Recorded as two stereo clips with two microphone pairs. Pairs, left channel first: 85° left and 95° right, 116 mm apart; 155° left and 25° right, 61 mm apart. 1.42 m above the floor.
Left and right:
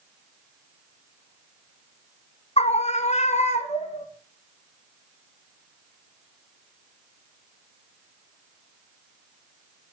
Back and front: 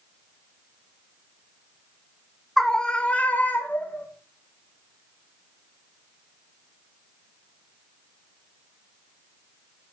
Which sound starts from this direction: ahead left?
A scream, at 2.6 s.